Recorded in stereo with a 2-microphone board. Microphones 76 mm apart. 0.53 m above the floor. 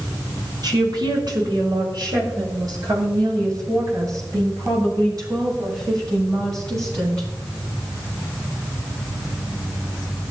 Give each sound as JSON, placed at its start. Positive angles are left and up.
{"t": 0.6, "sound": "a woman speaking", "side_deg": -75, "distance_m": 5.0}